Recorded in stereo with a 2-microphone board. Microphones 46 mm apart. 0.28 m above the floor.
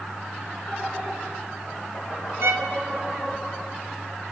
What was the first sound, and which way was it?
Laughter, 65° left (ahead or behind).